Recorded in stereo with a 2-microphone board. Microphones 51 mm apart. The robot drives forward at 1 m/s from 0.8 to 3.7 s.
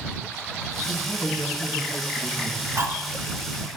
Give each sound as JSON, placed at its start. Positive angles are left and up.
{"t": 0.8, "sound": "a woman speaking", "side_deg": 50, "distance_m": 3.0}
{"t": 2.8, "sound": "cutlery clinking", "side_deg": -60, "distance_m": 1.3}